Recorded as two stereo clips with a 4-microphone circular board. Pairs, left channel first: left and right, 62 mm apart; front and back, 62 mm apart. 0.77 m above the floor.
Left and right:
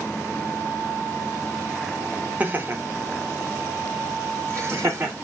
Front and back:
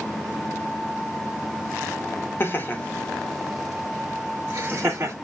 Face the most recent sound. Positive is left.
turn(degrees=-135)